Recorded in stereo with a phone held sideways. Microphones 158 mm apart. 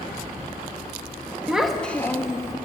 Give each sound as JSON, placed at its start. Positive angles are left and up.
{"t": 1.5, "sound": "a child speaking", "side_deg": -5, "distance_m": 1.0}